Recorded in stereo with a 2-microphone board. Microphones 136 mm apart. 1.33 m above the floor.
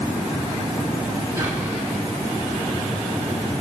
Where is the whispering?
30° right (ahead or behind), 7 m.